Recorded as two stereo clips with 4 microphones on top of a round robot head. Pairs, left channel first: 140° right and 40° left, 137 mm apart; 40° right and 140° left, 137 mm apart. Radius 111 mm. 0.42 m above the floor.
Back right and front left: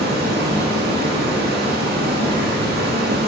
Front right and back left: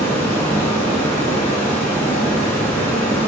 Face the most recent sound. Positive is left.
turn(degrees=35)